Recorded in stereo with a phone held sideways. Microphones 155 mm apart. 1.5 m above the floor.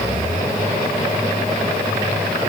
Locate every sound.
Only background noise.